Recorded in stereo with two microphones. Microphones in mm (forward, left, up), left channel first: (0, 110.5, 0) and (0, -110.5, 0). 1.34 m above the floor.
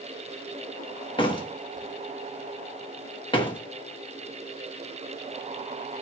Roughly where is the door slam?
Left.